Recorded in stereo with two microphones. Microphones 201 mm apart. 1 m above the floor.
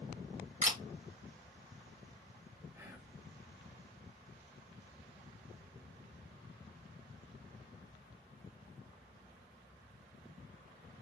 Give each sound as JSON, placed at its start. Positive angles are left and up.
{"t": 0.6, "sound": "a camera shutter", "side_deg": -35, "distance_m": 1.4}
{"t": 2.7, "sound": "whispering", "side_deg": -15, "distance_m": 1.0}